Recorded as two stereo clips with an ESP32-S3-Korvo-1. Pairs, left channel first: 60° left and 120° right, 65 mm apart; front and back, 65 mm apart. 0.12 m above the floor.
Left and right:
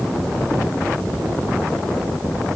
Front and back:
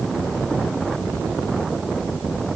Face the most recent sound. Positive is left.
No sound to turn to.